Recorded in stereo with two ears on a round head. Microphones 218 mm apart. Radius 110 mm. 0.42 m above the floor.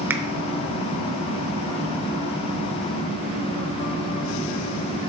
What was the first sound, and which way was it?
A finger snap, 10° right (ahead or behind).